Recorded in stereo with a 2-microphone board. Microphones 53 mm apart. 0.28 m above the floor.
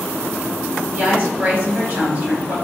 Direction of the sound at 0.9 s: 30° right (ahead or behind).